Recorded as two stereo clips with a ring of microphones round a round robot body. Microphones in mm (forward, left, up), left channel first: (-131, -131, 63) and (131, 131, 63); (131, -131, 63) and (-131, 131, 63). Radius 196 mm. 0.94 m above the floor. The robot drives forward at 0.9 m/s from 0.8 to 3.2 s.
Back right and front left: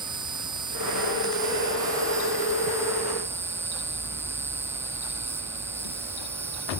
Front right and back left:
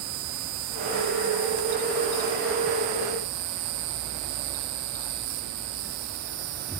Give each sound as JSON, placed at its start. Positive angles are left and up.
{"t": 0.0, "sound": "an insect", "azimuth_deg": 125}